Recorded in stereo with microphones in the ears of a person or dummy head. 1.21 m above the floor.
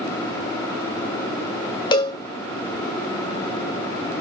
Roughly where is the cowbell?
Left.